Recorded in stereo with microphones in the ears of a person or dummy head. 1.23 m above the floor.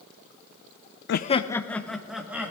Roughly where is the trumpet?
No trumpet in this recording.